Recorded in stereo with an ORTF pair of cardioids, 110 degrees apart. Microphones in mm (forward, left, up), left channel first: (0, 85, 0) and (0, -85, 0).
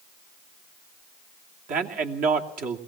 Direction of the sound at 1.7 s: 55° right.